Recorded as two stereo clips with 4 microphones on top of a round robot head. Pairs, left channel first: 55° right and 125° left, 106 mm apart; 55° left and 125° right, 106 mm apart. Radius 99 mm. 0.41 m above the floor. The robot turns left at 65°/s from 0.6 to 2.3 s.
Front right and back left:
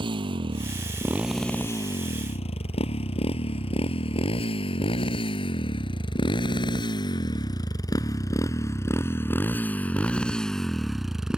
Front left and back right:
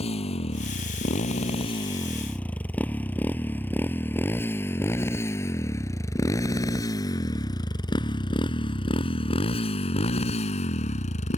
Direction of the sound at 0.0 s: 85° left.